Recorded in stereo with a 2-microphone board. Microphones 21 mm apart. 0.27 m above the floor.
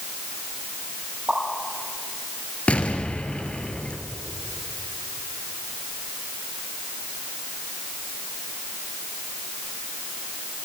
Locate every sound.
1.3 s a pop: 30° right (ahead or behind), 6.5 m
2.7 s an explosion: 70° left (ahead or behind), 2.5 m